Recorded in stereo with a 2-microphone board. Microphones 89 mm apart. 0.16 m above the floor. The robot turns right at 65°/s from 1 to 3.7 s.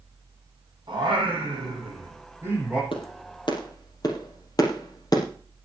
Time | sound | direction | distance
0.9 | singing | 125° right | 7 m
2.9 | a clap | 75° left (ahead or behind) | 4.5 m